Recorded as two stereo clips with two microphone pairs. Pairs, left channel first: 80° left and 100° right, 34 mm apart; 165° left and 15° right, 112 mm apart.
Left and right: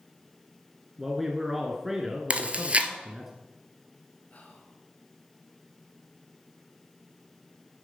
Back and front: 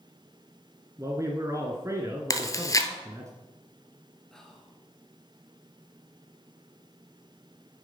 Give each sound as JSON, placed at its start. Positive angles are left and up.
{"t": 1.0, "sound": "a man speaking", "azimuth_deg": -25, "distance_m": 1.7}
{"t": 2.3, "sound": "chewing", "azimuth_deg": -140, "distance_m": 1.1}
{"t": 4.3, "sound": "whispering", "azimuth_deg": 80, "distance_m": 2.5}